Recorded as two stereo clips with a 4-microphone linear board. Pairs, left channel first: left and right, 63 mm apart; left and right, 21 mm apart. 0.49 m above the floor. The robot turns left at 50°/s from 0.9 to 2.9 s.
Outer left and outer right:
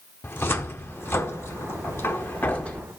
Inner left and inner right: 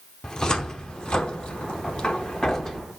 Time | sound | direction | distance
0.2 | a cupboard door | 35° left (ahead or behind) | 0.7 m